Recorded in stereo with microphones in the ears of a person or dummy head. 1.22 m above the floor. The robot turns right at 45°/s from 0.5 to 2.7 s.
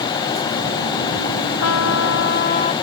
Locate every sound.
1.6 s a trumpet: 95° left; by 2.7 s 145° left